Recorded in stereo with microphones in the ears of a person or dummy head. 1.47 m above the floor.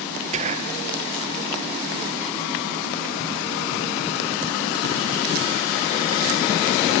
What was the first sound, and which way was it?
Whispering, 35° right (ahead or behind).